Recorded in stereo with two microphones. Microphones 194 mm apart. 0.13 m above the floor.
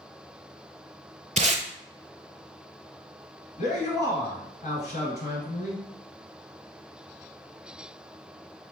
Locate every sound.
1.4 s tape being pulled: 40° right (ahead or behind), 0.6 m
3.6 s a man speaking: 40° left (ahead or behind), 1.9 m